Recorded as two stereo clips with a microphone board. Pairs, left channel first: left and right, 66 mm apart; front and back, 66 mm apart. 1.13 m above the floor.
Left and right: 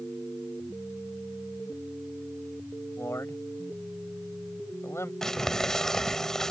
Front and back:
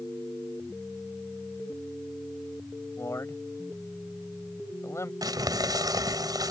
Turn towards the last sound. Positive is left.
turn(degrees=170)